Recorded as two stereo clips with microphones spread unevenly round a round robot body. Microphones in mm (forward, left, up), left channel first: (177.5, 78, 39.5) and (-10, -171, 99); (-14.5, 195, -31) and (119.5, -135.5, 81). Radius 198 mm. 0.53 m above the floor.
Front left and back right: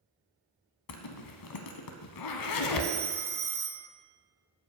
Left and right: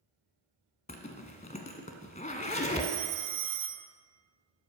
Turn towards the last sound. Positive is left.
turn(degrees=-60)